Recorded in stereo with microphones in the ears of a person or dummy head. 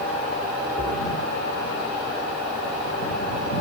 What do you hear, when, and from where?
0.8 s a splash: 50° right (ahead or behind)